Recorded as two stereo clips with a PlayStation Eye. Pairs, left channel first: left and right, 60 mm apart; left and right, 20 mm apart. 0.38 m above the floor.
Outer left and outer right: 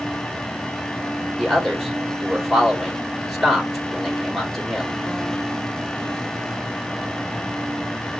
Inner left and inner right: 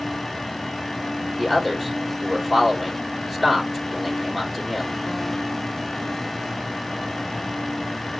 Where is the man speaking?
Centre (ahead or behind), 1.5 m.